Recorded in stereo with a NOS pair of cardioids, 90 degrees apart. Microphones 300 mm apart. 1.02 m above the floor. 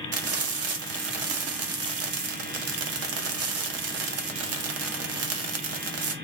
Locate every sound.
0.1 s frying: 55° right, 0.7 m